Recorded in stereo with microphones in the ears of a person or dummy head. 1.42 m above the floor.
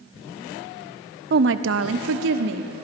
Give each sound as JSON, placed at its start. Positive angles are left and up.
{"t": 1.3, "sound": "a woman speaking", "side_deg": -50, "distance_m": 0.5}